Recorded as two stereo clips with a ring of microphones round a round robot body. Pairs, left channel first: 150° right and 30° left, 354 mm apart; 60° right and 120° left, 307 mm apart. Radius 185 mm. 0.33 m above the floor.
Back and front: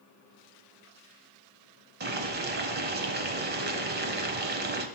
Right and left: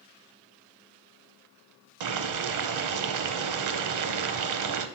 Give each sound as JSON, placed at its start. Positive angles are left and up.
{"t": 2.0, "sound": "boiling", "azimuth_deg": 95, "distance_m": 0.7}